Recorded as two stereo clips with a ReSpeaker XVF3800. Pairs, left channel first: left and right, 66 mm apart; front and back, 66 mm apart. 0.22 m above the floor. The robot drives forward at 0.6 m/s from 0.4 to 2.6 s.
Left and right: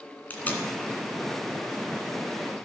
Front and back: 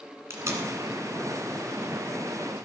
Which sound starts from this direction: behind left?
Tape being pulled, at 0.3 s.